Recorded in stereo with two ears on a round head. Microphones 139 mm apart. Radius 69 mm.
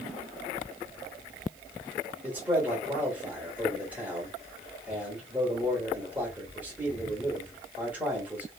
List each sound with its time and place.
2.2 s a man speaking: 10° right (ahead or behind), 1.0 m